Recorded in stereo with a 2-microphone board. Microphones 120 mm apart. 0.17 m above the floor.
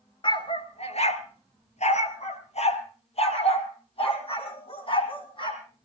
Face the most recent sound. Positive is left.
turn(degrees=45)  # may be behind; listen again after turning